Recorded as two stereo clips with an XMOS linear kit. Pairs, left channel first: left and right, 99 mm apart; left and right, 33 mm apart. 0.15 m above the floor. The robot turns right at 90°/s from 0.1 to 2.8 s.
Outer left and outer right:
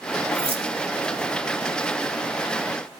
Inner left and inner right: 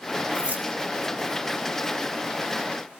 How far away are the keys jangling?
About 6 m.